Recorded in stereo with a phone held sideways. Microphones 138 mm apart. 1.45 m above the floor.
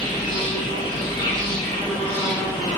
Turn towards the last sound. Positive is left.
turn(degrees=30)  # may be behind; listen again after turning